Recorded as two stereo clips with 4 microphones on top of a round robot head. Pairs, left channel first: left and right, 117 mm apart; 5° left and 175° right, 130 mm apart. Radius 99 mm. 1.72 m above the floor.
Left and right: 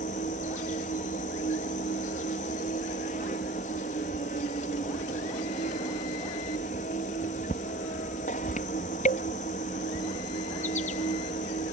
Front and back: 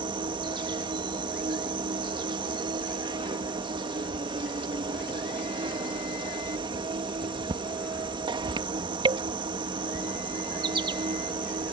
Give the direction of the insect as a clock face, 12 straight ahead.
8 o'clock.